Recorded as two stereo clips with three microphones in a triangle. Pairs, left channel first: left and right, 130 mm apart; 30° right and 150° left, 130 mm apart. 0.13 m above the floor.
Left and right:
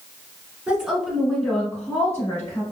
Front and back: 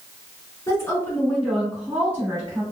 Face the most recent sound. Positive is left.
turn(degrees=120)